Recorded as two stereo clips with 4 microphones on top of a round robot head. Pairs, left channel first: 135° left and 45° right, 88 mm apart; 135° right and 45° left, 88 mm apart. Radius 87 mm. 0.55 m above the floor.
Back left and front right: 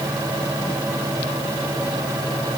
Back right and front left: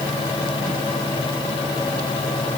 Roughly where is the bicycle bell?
I don't hear a bicycle bell.